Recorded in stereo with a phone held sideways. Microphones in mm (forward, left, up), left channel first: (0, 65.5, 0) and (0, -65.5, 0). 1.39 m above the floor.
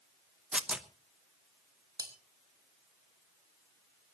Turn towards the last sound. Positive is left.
turn(degrees=-30)  # may be behind; listen again after turning